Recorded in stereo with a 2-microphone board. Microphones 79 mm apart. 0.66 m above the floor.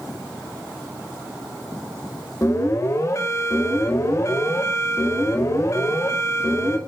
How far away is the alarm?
About 4.5 m.